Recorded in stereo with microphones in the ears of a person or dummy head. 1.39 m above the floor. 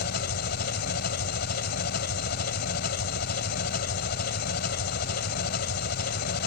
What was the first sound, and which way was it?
An engine running, 55° left (ahead or behind).